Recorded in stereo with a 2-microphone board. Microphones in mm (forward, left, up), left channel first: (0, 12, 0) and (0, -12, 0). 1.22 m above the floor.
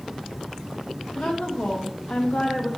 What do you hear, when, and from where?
1.1 s a woman speaking: 65° left (ahead or behind), 1.5 m